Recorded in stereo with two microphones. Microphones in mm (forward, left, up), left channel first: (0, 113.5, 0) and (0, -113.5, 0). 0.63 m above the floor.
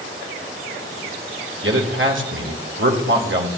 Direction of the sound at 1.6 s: 60° right (ahead or behind).